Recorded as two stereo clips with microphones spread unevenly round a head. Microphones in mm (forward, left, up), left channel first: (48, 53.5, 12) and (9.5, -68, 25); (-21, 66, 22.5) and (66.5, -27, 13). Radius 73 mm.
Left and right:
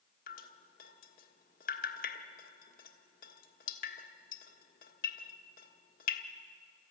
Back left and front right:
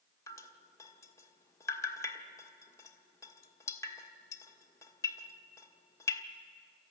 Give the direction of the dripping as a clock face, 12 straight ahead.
10 o'clock.